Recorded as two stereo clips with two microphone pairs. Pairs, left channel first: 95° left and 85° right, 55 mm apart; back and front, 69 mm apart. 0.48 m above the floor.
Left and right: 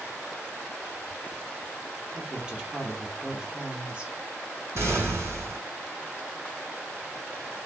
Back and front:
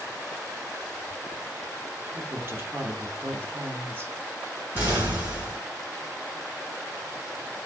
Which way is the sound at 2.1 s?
25° right.